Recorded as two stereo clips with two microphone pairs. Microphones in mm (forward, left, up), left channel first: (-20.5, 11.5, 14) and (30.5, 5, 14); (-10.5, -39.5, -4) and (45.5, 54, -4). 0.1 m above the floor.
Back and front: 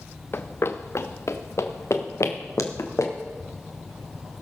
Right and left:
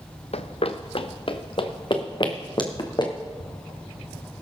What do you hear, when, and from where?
0.3 s running footsteps: 140° right, 0.8 m; by 3.1 s 170° right, 2.5 m